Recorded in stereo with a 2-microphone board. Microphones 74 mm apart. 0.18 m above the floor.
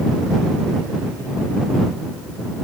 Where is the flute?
No flute in this recording.